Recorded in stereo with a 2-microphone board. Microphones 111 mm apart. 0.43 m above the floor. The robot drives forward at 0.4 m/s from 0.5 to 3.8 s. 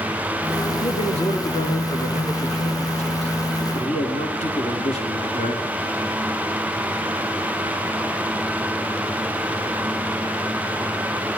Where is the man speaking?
80° left, 4.5 m; by 5.6 s 75° left (ahead or behind), 5 m.